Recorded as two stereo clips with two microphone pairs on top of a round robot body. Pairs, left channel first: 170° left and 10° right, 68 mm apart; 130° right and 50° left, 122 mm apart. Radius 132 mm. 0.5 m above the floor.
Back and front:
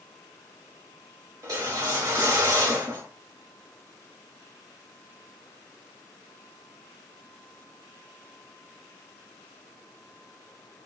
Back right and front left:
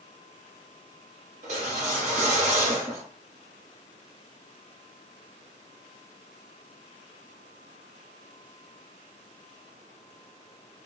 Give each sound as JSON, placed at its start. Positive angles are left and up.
{"t": 1.4, "sound": "a whoosh", "azimuth_deg": 25, "distance_m": 0.9}